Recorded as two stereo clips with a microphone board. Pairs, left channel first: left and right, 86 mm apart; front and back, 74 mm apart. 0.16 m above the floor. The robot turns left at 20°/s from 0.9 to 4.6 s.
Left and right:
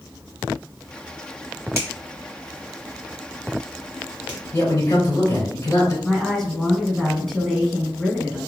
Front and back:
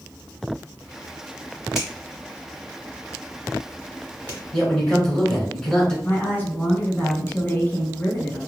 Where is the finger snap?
90° right, 1.6 m; by 4.4 s 145° right, 1.6 m.